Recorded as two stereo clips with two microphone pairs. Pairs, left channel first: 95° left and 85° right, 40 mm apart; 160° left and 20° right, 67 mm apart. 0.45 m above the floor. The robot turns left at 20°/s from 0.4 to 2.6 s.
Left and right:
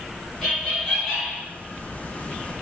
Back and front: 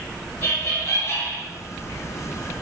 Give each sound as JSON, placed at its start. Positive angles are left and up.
{"t": 0.4, "sound": "laughter", "azimuth_deg": -175, "distance_m": 1.4}